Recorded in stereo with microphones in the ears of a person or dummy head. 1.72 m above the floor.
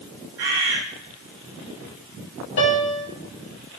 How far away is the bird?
About 1.5 m.